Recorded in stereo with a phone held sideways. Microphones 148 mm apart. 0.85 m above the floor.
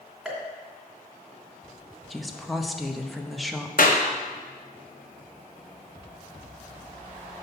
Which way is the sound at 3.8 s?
70° left (ahead or behind).